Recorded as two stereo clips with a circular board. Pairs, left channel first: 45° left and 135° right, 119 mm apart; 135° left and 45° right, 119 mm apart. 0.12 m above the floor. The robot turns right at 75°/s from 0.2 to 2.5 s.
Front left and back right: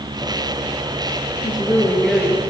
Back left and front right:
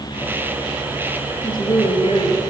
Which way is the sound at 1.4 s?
80° left.